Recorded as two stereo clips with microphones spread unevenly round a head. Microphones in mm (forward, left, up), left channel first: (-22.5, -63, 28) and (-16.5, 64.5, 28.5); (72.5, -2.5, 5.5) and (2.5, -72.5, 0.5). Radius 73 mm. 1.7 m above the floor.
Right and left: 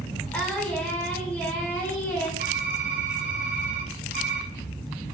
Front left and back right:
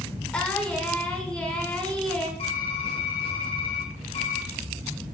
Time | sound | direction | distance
0.3 | singing | 20° right | 1.5 m
2.4 | typing on a keyboard | 95° left | 1.5 m